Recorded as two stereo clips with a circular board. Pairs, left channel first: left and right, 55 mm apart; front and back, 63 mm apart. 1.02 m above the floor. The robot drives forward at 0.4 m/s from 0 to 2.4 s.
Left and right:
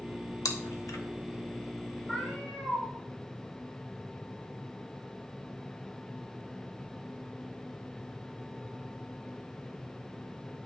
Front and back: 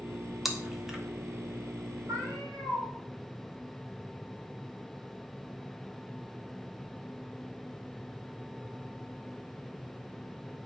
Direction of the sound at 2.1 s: 165° left.